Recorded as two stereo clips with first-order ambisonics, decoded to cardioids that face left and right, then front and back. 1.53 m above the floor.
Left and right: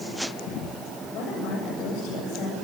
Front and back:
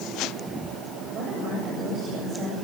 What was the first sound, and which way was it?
A woman speaking, 125° left.